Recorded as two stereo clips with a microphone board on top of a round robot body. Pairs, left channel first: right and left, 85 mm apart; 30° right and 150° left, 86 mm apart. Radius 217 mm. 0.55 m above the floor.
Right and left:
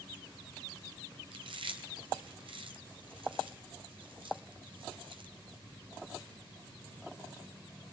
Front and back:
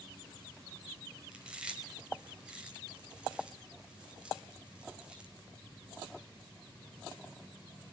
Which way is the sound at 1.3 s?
70° left.